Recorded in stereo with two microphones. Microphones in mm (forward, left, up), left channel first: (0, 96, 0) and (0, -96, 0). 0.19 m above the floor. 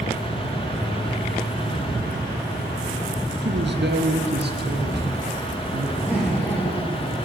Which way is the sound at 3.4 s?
65° right (ahead or behind).